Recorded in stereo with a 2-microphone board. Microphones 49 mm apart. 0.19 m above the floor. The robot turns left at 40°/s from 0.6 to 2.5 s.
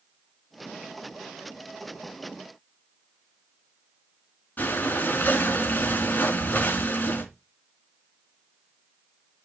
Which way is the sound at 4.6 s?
40° left (ahead or behind).